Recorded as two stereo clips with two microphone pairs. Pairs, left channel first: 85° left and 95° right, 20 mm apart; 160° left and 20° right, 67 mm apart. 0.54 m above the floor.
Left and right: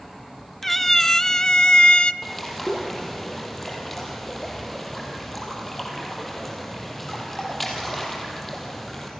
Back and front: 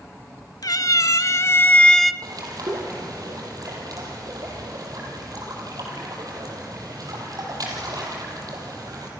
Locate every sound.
0.6 s a cat meowing: 165° left, 1.0 m; by 2.1 s 70° left, 0.6 m
2.2 s a bird: 5° left, 5.5 m